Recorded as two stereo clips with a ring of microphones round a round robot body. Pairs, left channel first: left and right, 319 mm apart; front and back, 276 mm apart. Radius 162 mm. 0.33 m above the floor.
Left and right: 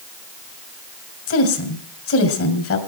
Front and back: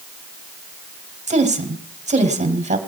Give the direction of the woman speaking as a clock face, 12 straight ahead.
8 o'clock.